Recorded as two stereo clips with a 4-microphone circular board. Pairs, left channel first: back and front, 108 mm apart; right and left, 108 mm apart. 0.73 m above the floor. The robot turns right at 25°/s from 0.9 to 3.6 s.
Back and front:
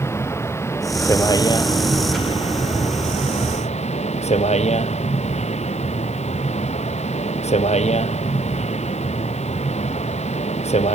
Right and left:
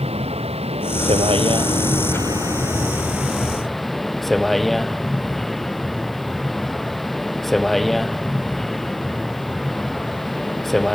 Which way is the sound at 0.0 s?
115° left.